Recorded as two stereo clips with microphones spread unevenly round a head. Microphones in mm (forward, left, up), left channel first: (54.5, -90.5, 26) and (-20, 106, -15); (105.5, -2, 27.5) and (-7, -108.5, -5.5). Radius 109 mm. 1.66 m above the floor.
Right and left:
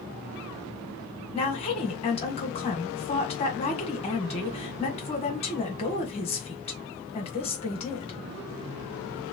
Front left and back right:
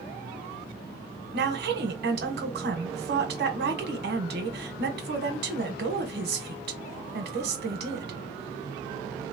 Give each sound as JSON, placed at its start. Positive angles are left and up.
{"t": 1.3, "sound": "a woman speaking", "azimuth_deg": -125, "distance_m": 1.2}